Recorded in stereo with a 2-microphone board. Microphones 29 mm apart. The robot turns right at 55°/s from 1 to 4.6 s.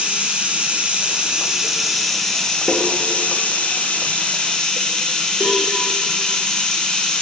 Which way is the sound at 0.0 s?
55° right.